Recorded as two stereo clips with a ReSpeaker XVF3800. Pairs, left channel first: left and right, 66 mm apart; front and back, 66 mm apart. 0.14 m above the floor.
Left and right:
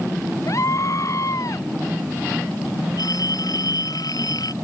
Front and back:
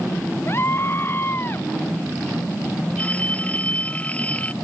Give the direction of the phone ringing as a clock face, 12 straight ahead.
10 o'clock.